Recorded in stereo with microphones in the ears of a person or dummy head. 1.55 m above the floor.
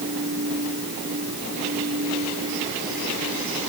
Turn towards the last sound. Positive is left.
turn(degrees=-60)  # may be behind; listen again after turning